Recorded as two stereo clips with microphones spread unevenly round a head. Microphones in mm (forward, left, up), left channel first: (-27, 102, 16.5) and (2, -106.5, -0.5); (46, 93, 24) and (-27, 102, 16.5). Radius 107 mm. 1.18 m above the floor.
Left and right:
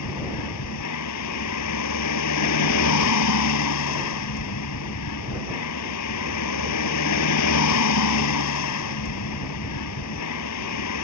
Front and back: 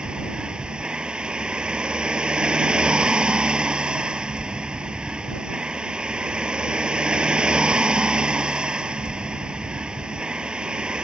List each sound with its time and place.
0.0 s a vehicle: 95° left